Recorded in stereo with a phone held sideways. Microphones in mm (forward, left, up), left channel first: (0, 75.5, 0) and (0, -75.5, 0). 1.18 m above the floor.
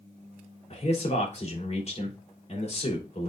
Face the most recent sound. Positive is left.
turn(degrees=45)  # may be behind; listen again after turning